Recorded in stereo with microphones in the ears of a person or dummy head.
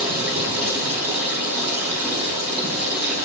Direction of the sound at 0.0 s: 10° right (ahead or behind).